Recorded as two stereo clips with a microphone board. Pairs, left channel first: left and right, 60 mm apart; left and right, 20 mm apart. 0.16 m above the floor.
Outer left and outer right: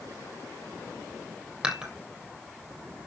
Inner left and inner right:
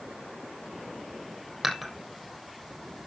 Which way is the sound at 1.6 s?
15° right (ahead or behind).